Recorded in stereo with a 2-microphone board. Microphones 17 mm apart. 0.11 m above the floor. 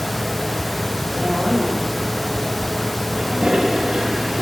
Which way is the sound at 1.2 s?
45° right (ahead or behind).